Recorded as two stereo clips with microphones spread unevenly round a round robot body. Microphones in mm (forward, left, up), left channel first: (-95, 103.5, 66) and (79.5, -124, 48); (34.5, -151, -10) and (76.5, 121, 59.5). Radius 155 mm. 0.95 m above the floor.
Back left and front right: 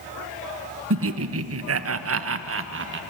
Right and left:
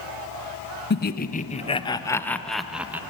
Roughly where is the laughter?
Right.